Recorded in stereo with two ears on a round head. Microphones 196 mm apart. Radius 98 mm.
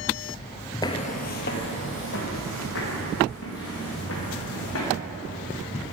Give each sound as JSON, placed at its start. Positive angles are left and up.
{"t": 0.8, "sound": "footsteps", "side_deg": 15, "distance_m": 0.5}